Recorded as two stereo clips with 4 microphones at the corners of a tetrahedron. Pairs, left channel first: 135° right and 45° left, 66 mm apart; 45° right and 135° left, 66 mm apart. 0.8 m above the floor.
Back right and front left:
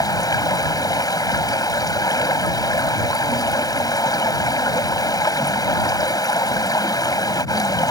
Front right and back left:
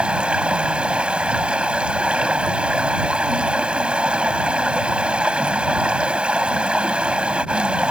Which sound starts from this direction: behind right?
Running water, at 0.0 s.